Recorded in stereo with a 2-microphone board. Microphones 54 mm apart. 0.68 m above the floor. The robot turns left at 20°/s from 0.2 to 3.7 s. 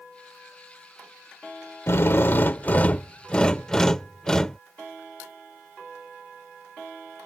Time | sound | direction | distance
1.9 | a drill | 50° left | ?